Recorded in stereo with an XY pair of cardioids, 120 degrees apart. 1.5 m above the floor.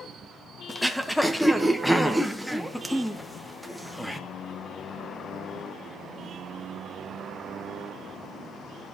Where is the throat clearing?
Straight ahead, 1.2 m.